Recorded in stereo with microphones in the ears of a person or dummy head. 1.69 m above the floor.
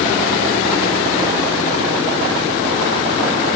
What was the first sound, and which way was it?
Only background noise.